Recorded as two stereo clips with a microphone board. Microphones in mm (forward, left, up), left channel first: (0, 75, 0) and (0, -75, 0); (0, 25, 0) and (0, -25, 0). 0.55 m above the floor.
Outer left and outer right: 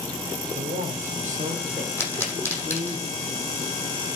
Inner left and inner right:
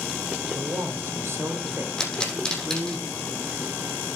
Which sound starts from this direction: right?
A man speaking, at 0.6 s.